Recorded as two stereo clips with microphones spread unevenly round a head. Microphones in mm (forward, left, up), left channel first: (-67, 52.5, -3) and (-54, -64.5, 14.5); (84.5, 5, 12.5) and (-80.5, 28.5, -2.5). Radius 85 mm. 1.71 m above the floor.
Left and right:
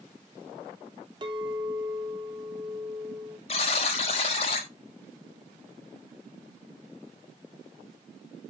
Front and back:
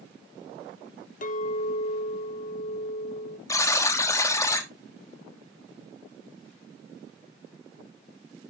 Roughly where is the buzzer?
Ahead left.